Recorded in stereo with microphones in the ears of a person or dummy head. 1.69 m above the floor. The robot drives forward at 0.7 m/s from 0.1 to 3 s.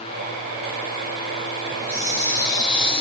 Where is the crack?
No crack in this recording.